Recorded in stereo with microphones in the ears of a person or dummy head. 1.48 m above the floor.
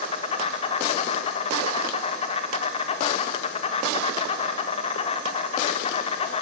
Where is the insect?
35° left (ahead or behind), 1.8 m.